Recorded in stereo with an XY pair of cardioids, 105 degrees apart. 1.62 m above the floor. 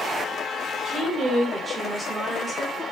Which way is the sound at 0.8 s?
60° right.